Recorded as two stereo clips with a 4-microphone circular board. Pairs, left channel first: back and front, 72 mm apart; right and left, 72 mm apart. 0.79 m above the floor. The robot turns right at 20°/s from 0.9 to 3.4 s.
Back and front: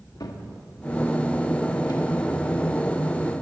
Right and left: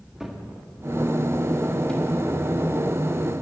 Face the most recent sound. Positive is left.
turn(degrees=-135)